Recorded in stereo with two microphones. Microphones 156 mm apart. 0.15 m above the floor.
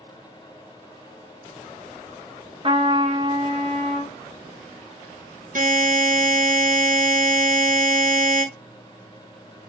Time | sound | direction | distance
2.6 | a trumpet | 35° right (ahead or behind) | 0.8 m
5.5 | a buzzer | 60° right (ahead or behind) | 0.8 m